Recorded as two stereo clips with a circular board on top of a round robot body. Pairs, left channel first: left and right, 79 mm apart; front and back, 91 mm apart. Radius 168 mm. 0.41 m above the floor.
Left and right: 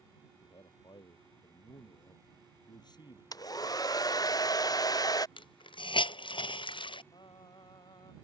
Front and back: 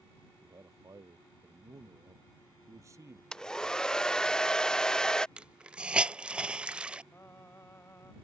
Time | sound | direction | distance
0.4 | a man speaking | 125° left | ?
3.3 | a hair dryer | 80° left | ?
5.4 | a hiss | 100° left | ?
7.1 | singing | 65° left | ?